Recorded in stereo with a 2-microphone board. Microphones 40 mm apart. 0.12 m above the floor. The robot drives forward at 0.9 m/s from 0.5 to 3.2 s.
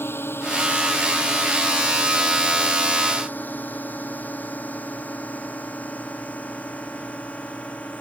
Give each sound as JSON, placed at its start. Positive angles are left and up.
{"t": 0.0, "sound": "a drone", "side_deg": 65}